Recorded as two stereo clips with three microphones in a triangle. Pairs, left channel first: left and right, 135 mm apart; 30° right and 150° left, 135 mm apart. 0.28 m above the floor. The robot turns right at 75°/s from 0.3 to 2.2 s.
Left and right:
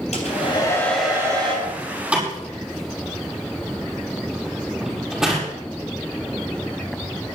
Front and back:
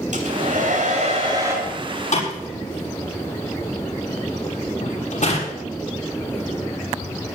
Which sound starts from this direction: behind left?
A hair dryer, at 0.1 s.